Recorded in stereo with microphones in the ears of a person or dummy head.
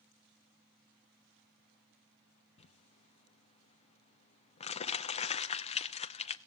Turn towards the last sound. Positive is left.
turn(degrees=25)  # may be behind; listen again after turning